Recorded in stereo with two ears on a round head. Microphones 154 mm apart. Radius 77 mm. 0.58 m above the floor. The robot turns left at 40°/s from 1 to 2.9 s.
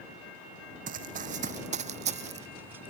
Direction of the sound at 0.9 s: 50° right (ahead or behind).